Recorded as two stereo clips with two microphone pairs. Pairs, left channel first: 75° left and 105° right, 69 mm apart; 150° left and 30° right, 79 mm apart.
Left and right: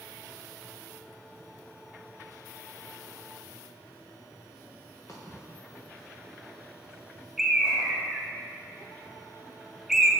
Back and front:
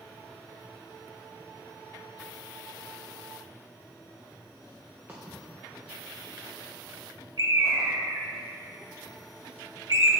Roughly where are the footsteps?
Ahead left.